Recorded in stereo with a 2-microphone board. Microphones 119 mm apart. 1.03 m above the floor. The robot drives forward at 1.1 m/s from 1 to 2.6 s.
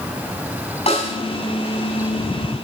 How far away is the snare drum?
About 6.5 m.